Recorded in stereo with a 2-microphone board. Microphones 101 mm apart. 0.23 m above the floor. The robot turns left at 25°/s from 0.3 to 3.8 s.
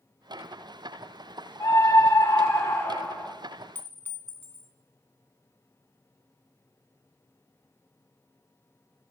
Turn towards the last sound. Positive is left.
turn(degrees=20)  # may be behind; listen again after turning